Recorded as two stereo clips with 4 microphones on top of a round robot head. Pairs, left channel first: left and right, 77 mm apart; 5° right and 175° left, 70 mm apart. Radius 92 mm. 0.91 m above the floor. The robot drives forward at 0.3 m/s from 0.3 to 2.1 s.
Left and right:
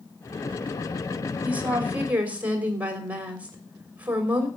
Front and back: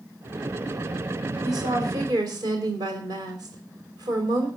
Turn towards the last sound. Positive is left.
turn(degrees=-160)